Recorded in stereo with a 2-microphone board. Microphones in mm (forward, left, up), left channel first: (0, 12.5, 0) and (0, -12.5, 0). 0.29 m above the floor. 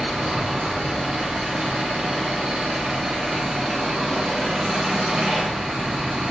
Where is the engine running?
55° right (ahead or behind), 1.9 m.